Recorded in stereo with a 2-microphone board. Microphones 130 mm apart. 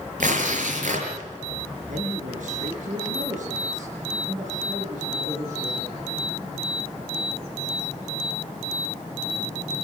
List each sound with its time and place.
0.2 s tearing paper: 80° right, 6 m
1.9 s a man speaking: 75° right (ahead or behind), 6.5 m